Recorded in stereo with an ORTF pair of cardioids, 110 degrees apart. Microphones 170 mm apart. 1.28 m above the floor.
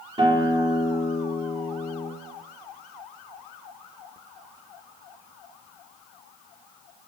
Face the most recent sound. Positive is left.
turn(degrees=-30)